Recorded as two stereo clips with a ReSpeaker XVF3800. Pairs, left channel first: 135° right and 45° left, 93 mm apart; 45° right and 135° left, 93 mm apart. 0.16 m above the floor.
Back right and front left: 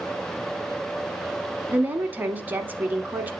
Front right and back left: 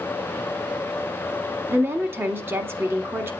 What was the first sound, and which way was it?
A woman speaking, 95° left.